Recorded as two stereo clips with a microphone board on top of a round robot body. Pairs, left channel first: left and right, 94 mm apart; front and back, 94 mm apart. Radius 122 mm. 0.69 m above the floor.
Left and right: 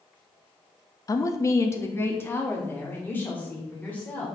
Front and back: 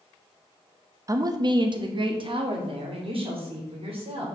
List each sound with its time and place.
1.1 s a woman speaking: 135° left, 0.7 m; by 4.3 s 165° left, 2.5 m